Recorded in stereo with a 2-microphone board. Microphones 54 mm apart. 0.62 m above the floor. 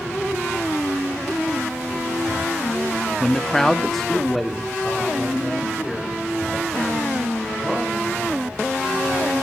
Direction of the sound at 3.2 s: 10° left (ahead or behind).